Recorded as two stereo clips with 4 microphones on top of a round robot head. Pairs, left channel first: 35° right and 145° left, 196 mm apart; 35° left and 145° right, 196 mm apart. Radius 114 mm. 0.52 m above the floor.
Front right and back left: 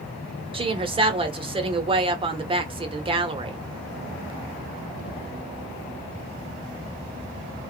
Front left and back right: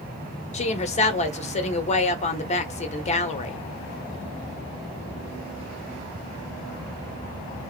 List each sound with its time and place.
0.5 s a woman speaking: 85° left, 1.0 m